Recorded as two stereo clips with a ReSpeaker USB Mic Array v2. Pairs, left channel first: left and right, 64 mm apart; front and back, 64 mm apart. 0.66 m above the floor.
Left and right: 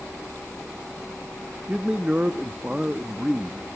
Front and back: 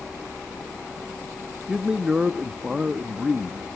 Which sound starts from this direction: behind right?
A man speaking, at 1.7 s.